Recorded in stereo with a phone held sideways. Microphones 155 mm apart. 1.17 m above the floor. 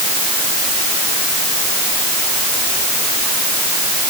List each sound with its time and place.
Only background noise.